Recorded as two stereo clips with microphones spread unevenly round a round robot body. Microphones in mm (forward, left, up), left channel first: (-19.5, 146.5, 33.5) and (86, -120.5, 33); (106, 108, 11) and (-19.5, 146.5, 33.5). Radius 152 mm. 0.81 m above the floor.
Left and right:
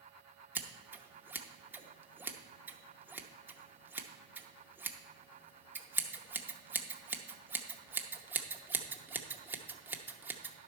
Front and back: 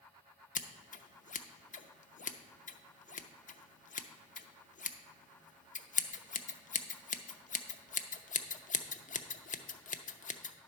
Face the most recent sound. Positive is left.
turn(degrees=15)